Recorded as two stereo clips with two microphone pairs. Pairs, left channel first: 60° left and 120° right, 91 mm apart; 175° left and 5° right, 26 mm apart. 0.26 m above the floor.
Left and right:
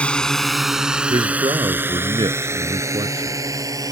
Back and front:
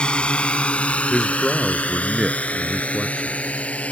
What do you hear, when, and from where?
0.0 s a drone: 135° left; by 3.9 s 170° right
1.1 s a man speaking: 100° right